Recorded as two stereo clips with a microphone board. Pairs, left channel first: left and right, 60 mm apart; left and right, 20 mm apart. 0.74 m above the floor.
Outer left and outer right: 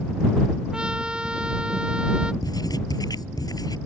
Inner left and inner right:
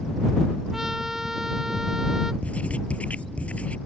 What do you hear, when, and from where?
0.7 s a trumpet: 15° right (ahead or behind)
2.4 s writing: 80° left